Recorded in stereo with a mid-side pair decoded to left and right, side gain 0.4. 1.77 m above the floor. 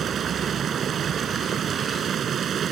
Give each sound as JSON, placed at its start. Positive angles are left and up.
{"t": 0.0, "sound": "running water", "azimuth_deg": -65}